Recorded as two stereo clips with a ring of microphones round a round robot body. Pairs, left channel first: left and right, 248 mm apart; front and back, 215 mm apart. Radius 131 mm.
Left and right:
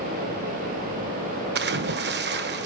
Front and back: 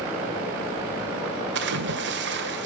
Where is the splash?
140° right, 1.2 m.